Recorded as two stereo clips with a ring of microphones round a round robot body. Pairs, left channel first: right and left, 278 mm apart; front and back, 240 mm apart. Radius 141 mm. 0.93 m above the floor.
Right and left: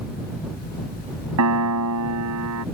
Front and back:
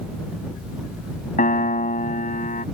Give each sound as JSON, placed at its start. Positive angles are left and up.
{"t": 1.4, "sound": "a piano", "azimuth_deg": 60}